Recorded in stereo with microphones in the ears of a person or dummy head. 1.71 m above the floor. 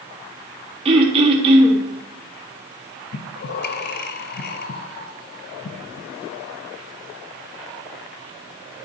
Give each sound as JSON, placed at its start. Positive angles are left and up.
{"t": 0.8, "sound": "throat clearing", "side_deg": -35, "distance_m": 1.3}
{"t": 3.1, "sound": "breathing", "side_deg": 45, "distance_m": 0.5}